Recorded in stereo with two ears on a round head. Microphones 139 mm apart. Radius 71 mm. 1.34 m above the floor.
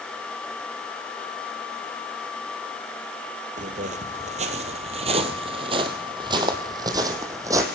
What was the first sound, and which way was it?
Footsteps, 50° right (ahead or behind).